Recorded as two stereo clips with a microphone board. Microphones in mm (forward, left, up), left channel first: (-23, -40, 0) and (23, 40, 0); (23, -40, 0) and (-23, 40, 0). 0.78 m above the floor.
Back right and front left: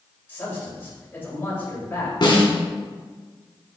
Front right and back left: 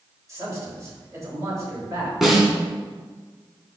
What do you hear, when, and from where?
0.3 s a man speaking: 175° left, 3 m
2.2 s a snare drum: 155° right, 1.9 m